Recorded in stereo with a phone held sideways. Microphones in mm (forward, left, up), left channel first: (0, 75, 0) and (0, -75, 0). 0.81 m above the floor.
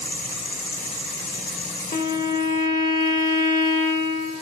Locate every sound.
1.9 s a violin: 60° left (ahead or behind), 0.8 m